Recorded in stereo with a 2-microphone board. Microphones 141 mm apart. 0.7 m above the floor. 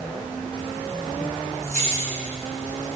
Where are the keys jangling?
55° right (ahead or behind), 4.5 m; by 2.9 s 70° right (ahead or behind), 4.5 m.